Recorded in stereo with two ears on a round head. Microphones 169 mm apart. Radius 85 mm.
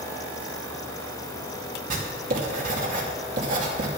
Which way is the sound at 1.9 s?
50° right (ahead or behind).